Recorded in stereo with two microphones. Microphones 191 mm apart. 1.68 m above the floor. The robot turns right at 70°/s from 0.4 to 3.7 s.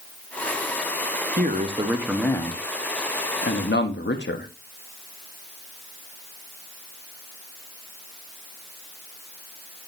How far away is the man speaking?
About 1.5 m.